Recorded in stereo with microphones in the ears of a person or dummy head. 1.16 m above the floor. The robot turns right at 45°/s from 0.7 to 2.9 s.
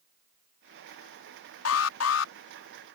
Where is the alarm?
85° left; by 2.3 s 115° left.